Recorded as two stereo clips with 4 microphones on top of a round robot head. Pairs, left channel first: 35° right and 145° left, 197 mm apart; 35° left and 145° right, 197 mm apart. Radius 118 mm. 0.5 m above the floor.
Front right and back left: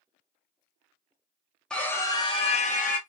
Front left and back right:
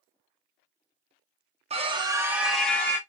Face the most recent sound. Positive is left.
turn(degrees=-35)